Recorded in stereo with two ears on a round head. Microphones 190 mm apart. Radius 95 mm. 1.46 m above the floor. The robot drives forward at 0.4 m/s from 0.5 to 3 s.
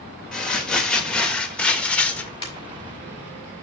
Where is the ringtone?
20° left (ahead or behind), 4.5 m.